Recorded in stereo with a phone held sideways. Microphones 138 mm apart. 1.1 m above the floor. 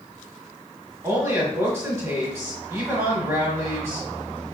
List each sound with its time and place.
1.0 s a woman speaking: 25° right (ahead or behind), 1.1 m